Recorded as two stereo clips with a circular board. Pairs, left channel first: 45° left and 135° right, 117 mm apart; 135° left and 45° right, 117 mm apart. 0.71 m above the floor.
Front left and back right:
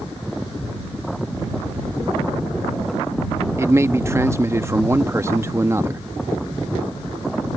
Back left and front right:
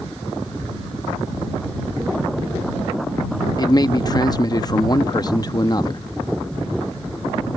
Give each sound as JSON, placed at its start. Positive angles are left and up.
{"t": 3.6, "sound": "a man speaking", "azimuth_deg": 170}